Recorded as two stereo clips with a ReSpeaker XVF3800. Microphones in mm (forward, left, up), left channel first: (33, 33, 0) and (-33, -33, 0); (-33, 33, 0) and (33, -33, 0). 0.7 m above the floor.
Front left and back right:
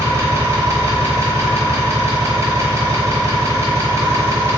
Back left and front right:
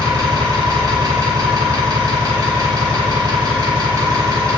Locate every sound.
0.0 s an engine running: 80° right, 0.7 m